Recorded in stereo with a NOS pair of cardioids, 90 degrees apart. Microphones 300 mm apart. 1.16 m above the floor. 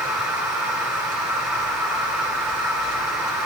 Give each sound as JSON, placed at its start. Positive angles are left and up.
{"t": 0.0, "sound": "a machine running", "azimuth_deg": 0, "distance_m": 7.0}